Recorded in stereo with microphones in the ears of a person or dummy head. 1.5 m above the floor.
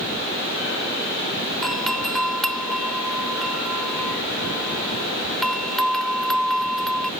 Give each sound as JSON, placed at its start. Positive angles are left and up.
{"t": 1.6, "sound": "a doorbell", "side_deg": 10}